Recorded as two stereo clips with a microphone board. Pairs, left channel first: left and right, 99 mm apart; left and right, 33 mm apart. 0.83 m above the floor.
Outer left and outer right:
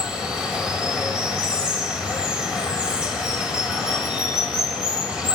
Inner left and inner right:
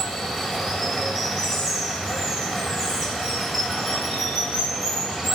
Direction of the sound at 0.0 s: 10° right (ahead or behind).